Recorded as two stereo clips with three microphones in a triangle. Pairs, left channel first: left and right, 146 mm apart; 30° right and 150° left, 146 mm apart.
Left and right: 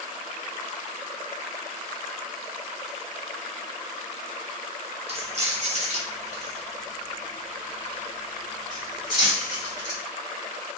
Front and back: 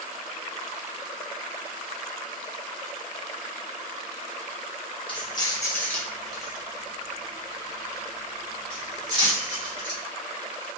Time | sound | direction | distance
5.1 | keys jangling | 70° right | 0.8 m